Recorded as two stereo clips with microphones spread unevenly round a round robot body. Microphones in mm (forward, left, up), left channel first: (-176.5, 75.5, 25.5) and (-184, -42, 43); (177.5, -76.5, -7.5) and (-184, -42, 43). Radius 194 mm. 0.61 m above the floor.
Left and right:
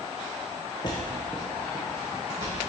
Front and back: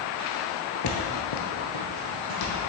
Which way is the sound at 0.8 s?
30° left.